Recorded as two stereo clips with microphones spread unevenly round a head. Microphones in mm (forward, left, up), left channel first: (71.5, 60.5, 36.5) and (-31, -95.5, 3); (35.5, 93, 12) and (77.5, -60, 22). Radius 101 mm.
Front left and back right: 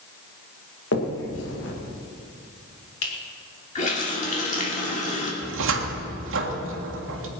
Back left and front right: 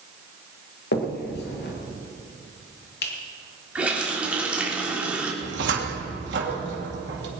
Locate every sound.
0.9 s a finger snap: 90° left, 2 m
3.8 s a running tap: 5° left, 3 m
5.4 s a cupboard door: 110° right, 1.8 m